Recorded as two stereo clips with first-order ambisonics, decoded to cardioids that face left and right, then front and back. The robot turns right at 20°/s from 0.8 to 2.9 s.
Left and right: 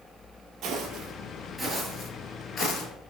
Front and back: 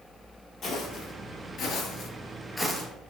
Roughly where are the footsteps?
Ahead right.